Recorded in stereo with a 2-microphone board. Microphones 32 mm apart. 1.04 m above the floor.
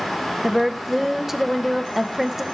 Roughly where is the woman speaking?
Centre.